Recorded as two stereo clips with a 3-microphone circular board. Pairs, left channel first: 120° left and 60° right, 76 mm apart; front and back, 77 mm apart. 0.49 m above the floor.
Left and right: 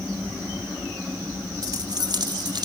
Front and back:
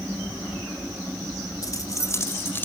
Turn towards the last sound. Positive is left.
turn(degrees=-60)